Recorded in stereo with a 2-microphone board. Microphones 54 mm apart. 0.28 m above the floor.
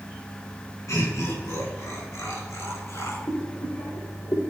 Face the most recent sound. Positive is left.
turn(degrees=75)  # may be behind; listen again after turning